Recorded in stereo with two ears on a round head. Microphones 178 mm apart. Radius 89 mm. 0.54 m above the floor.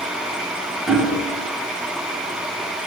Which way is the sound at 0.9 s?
Centre (ahead or behind).